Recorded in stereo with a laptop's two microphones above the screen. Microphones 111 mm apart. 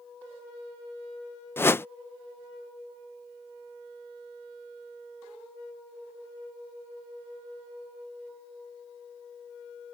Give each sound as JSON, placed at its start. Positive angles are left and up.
{"t": 1.6, "sound": "a whoosh", "side_deg": 20}